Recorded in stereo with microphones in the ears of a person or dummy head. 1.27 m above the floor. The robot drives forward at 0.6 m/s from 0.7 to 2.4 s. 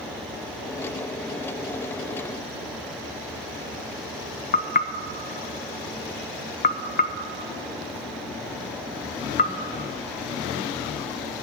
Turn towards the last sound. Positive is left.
turn(degrees=40)  # may be behind; listen again after turning